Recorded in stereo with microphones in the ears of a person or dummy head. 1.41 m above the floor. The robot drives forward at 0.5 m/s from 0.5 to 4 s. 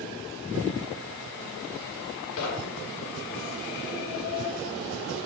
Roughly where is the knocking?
Left.